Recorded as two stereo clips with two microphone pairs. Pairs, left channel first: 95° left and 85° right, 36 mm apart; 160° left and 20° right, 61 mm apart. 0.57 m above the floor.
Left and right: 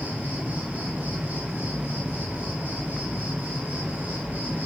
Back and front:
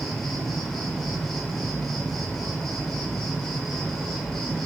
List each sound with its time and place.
0.0 s an insect: 120° right, 0.9 m